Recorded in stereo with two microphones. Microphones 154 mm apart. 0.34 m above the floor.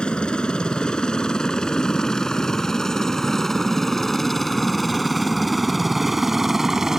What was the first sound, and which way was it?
A helicopter, 5° left (ahead or behind).